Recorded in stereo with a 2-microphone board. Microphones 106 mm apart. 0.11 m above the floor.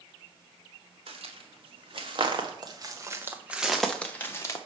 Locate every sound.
1.1 s footsteps: 65° right (ahead or behind), 1.8 m; by 4.6 s 30° left (ahead or behind), 1.0 m